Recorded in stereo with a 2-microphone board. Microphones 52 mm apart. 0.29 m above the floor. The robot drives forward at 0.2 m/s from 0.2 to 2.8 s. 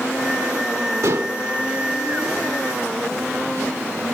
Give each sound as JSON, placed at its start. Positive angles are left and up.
{"t": 1.0, "sound": "dishes clattering", "side_deg": -70, "distance_m": 2.5}